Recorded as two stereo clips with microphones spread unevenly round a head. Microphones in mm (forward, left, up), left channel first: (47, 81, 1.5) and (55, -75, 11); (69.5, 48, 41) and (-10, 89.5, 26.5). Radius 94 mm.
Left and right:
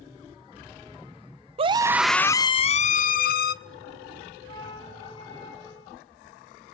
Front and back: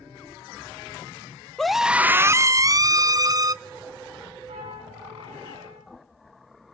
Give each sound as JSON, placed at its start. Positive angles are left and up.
{"t": 1.6, "sound": "a scream", "azimuth_deg": -120, "distance_m": 0.6}
{"t": 4.5, "sound": "a flute", "azimuth_deg": 160, "distance_m": 5.5}